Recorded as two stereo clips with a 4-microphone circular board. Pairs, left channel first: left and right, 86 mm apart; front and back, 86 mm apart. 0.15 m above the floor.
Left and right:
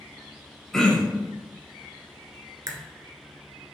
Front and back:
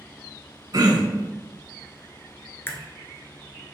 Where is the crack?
60° right, 0.7 m.